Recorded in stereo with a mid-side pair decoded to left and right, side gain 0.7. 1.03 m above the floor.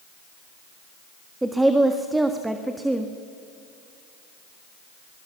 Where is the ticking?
I don't hear ticking.